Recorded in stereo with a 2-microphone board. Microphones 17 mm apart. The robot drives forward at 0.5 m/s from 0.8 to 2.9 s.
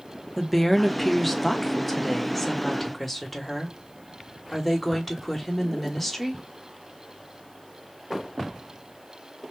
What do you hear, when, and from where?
0.4 s a woman speaking: 5° left (ahead or behind), 0.9 m; by 6.4 s centre (ahead or behind), 1.7 m